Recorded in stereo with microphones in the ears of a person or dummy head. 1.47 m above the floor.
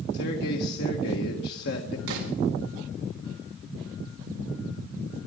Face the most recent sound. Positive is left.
turn(degrees=-80)